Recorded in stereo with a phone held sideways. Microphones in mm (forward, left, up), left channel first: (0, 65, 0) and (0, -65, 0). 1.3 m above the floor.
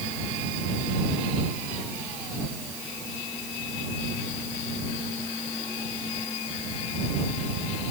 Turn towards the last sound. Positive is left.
No sound to turn to.